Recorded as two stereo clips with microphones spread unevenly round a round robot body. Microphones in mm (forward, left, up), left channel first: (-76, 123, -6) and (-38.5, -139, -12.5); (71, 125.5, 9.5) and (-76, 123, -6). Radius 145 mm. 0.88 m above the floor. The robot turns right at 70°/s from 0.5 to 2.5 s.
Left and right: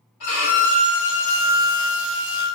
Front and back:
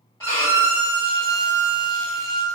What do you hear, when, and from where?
0.2 s a violin: 65° left, 1.7 m; by 2.5 s 155° right, 1.7 m